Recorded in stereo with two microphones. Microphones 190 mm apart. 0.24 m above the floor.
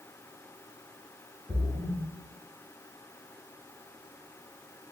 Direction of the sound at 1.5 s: 20° left (ahead or behind).